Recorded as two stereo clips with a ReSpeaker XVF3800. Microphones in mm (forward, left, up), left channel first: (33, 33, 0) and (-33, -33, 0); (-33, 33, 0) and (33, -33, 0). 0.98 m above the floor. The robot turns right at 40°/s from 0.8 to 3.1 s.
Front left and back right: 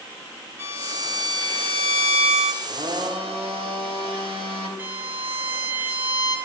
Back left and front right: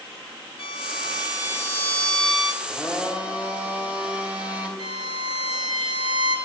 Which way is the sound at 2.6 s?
140° right.